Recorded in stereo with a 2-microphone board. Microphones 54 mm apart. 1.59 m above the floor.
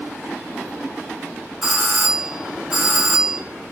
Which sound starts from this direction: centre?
A doorbell, at 1.6 s.